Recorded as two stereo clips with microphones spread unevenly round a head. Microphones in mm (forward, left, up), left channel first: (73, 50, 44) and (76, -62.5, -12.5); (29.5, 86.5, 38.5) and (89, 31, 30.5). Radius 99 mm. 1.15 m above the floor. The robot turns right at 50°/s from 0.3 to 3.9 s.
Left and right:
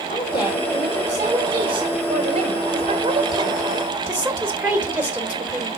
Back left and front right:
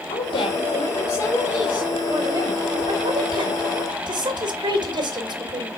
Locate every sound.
0.1 s a woman speaking: 160° left, 2.5 m; by 5.7 s 20° right, 2.5 m